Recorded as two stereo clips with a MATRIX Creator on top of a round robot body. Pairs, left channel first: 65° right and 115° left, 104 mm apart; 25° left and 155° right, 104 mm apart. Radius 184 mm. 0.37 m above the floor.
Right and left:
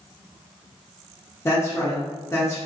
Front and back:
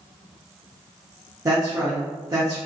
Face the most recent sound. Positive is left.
turn(degrees=-115)